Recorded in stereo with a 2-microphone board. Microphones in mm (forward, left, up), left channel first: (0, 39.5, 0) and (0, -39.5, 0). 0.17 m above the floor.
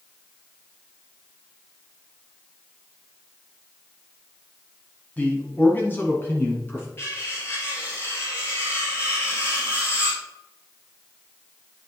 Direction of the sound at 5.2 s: 20° left (ahead or behind).